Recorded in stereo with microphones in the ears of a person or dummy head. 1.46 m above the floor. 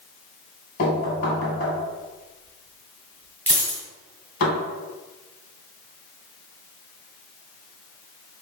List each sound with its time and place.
0.8 s knocking: 50° left (ahead or behind), 1.7 m
3.5 s a dropped coin: 20° right (ahead or behind), 1.9 m